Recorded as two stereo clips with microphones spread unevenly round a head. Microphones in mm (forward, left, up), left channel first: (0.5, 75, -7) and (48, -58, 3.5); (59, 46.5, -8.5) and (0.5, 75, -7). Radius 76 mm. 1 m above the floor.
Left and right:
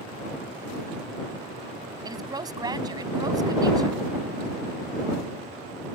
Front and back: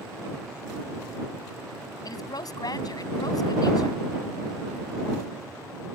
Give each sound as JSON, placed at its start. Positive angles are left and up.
{"t": 2.0, "sound": "a woman speaking", "azimuth_deg": -10}